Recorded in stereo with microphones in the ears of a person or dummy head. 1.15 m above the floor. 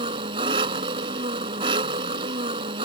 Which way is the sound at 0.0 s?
25° right (ahead or behind).